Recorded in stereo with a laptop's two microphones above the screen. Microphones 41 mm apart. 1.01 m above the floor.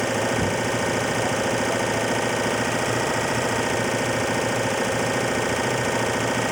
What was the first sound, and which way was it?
An engine running, centre (ahead or behind).